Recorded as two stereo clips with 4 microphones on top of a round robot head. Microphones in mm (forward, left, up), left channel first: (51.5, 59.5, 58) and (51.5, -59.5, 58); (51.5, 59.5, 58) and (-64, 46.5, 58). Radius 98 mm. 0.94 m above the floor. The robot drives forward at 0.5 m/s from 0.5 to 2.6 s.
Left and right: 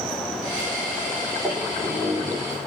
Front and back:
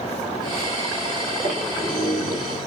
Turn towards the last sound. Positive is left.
turn(degrees=165)